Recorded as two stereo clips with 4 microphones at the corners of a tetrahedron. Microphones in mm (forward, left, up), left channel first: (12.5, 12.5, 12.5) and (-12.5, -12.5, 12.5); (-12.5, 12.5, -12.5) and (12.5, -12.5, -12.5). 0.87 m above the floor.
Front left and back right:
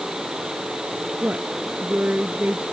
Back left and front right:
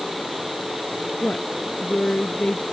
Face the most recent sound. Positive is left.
turn(degrees=-175)